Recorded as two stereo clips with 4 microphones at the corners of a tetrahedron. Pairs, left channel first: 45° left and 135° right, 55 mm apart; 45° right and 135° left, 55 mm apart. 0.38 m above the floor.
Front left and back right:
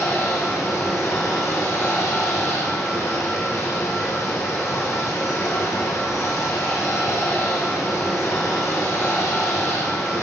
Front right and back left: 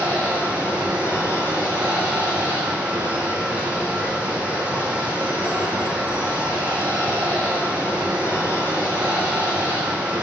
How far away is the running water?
About 3.5 m.